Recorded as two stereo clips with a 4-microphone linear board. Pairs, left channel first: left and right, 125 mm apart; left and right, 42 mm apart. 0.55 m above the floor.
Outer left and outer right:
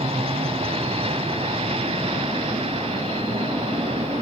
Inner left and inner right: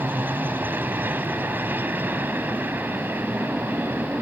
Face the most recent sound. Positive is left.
turn(degrees=-50)  # may be behind; listen again after turning